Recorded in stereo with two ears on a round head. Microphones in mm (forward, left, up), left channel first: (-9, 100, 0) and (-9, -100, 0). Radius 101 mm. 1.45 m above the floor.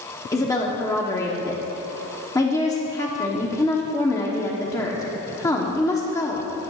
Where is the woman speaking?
15° left (ahead or behind), 1.0 m.